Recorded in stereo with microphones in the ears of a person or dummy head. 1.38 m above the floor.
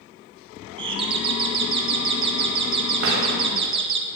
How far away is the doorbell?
About 1.2 m.